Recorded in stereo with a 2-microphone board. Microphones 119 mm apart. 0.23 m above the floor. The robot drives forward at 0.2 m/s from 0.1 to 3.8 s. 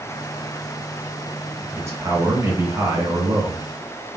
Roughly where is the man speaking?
Right.